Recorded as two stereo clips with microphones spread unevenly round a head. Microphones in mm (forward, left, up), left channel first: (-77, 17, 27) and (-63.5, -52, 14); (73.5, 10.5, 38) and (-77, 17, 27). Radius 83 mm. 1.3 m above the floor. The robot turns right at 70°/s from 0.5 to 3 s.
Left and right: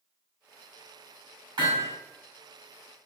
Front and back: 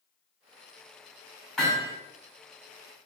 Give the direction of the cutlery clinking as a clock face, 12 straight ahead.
No cutlery clinking in this recording.